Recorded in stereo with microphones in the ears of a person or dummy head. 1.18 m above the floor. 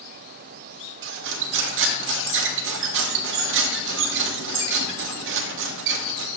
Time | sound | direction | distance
1.0 | cutlery clinking | 75° right (ahead or behind) | 1.2 m